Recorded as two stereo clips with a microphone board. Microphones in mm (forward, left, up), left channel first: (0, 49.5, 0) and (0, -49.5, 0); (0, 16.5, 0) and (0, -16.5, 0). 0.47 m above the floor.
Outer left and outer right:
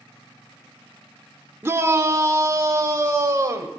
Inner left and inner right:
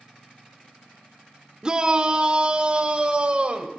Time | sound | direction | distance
1.6 | a shout | 25° right (ahead or behind) | 0.8 m